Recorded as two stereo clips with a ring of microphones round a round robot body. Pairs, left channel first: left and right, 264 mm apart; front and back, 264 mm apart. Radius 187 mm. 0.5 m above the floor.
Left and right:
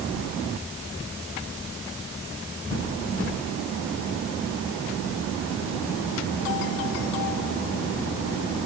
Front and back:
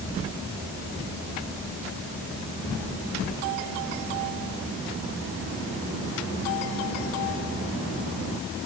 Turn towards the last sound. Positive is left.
No sound to turn to.